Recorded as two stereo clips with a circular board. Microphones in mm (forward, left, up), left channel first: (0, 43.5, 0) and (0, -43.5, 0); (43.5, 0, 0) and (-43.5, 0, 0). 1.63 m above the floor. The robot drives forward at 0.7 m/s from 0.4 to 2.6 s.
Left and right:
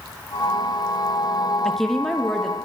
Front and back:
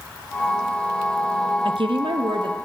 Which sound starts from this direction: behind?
A woman speaking, at 1.6 s.